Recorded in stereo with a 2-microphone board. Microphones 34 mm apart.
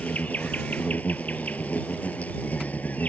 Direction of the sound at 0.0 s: 55° left (ahead or behind).